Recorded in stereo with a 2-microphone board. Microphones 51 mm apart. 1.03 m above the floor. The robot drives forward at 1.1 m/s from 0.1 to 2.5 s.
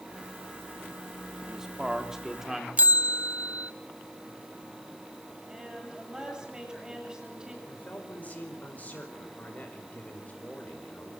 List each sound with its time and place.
1.4 s a man speaking: 10° right (ahead or behind), 2.5 m
2.8 s a bell: 30° right (ahead or behind), 0.6 m
5.5 s a woman speaking: 15° right (ahead or behind), 9.5 m
7.7 s a man speaking: 30° left (ahead or behind), 5 m